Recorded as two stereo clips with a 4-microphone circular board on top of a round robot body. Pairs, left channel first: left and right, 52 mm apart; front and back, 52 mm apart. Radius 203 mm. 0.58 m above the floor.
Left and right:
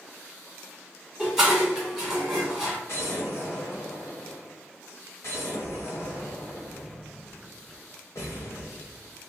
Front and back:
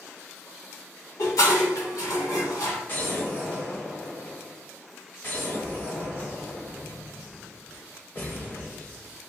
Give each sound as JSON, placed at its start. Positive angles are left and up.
{"t": 1.2, "sound": "dishes clattering", "azimuth_deg": -10, "distance_m": 1.6}
{"t": 2.9, "sound": "an explosion", "azimuth_deg": 55, "distance_m": 0.7}